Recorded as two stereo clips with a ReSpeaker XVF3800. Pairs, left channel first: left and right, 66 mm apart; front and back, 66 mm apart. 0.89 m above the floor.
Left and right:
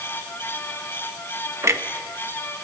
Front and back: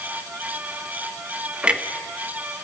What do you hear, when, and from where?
1.6 s a clunk: 110° right, 1.2 m